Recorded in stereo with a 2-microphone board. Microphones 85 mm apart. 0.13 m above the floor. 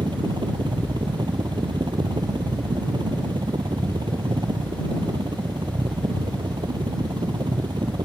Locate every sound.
0.0 s a helicopter: 65° right (ahead or behind)